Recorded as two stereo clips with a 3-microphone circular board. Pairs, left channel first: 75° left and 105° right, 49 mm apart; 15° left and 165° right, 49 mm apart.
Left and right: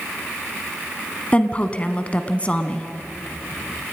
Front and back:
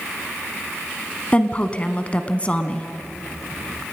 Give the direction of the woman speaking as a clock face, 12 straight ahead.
10 o'clock.